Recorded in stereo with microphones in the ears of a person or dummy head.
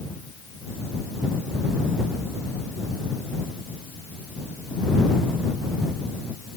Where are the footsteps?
No footsteps in this recording.